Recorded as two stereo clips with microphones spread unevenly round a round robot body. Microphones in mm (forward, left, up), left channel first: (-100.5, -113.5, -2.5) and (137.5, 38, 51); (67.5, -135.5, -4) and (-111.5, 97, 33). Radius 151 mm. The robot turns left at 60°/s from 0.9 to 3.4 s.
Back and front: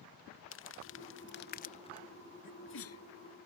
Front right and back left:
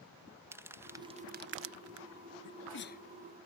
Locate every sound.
0.5 s crumpling: 145° right; by 2.1 s 145° left
2.4 s a sneeze: 85° right; by 3.0 s 120° right